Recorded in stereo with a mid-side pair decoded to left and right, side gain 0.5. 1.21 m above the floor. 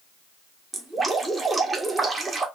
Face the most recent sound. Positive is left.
turn(degrees=-15)